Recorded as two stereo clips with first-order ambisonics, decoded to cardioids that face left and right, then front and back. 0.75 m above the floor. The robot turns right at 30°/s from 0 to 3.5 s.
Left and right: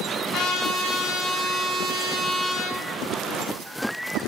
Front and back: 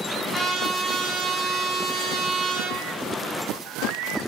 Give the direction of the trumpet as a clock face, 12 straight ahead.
9 o'clock.